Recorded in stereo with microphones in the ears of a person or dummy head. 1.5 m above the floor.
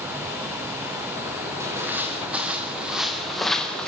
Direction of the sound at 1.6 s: 10° right (ahead or behind).